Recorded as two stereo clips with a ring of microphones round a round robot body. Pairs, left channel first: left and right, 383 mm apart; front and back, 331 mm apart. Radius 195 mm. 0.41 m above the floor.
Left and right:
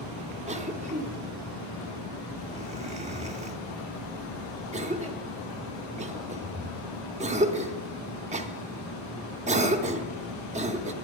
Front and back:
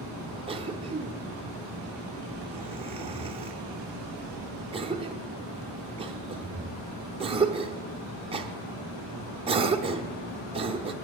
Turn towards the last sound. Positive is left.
turn(degrees=-135)